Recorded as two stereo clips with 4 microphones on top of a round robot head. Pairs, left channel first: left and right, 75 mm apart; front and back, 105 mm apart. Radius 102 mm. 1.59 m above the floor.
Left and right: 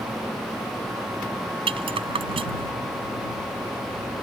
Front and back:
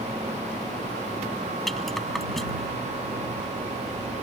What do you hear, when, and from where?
1.7 s a rattle: 90° right